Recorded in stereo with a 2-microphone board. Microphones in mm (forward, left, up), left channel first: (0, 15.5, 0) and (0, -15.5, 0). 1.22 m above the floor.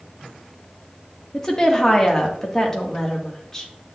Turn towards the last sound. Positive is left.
turn(degrees=15)  # may be behind; listen again after turning